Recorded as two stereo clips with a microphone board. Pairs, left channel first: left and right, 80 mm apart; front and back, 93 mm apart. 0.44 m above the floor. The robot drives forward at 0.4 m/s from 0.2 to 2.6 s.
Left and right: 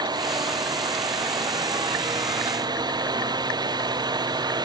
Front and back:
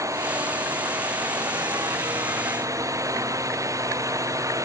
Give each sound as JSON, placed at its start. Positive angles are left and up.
{"t": 0.0, "sound": "a drone", "azimuth_deg": -120}